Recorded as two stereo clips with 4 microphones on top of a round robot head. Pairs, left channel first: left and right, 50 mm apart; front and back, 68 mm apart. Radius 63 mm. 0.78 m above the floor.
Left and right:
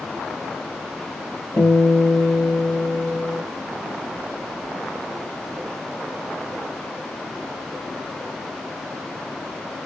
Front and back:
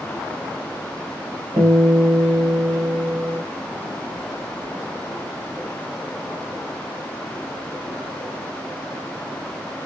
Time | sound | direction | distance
1.6 | a guitar | 140° left | 3.5 m